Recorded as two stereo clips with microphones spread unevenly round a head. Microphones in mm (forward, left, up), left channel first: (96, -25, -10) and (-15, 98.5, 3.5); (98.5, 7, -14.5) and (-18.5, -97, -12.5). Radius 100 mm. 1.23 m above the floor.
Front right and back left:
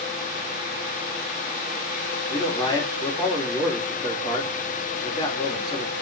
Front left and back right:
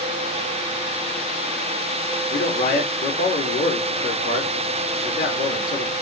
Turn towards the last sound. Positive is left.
turn(degrees=20)